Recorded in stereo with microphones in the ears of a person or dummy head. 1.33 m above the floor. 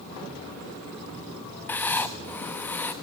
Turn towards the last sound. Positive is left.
turn(degrees=10)  # may be behind; listen again after turning